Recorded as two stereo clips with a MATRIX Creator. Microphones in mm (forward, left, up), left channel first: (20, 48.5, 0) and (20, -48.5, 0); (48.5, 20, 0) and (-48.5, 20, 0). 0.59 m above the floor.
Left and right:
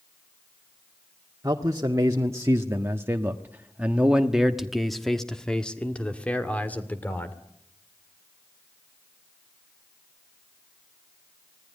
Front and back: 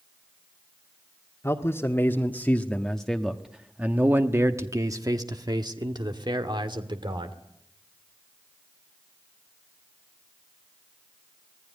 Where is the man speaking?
50° right, 1.7 m; by 7.4 s 160° left, 2.5 m.